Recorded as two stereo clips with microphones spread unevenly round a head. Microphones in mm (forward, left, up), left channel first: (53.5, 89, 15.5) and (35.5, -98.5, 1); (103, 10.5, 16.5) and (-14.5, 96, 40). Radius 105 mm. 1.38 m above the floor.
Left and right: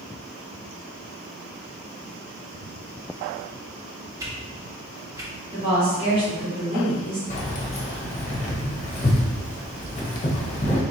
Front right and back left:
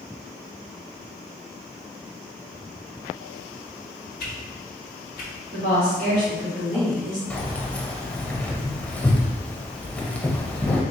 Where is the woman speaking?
165° right, 1.5 m.